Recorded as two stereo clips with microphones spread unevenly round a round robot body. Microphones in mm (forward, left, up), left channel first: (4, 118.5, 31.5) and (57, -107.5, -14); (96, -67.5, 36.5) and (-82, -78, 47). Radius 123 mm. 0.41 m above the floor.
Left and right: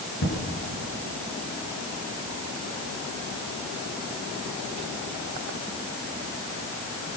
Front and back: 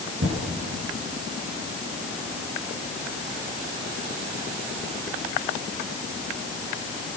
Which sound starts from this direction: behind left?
An explosion, at 0.2 s.